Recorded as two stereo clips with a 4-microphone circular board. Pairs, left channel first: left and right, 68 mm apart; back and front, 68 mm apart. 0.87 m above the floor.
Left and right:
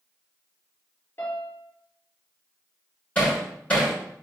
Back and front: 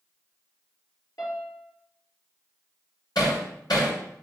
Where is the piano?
150° left, 3.5 m.